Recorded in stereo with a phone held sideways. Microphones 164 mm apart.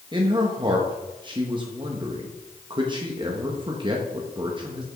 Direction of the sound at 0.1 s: 30° right (ahead or behind).